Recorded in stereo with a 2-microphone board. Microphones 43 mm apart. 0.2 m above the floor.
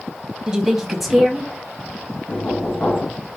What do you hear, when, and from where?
0.5 s a woman speaking: 15° right (ahead or behind), 1.0 m; by 1.5 s 5° left (ahead or behind), 1.2 m
2.3 s knocking: 35° left (ahead or behind), 1.5 m